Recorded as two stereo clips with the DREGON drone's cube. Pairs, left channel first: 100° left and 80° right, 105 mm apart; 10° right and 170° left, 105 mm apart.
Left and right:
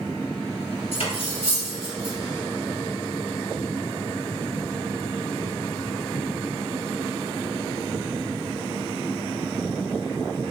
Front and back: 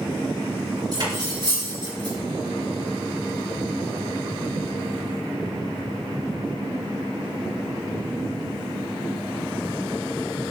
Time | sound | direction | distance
0.9 | cutlery clinking | 125° left | 3.5 m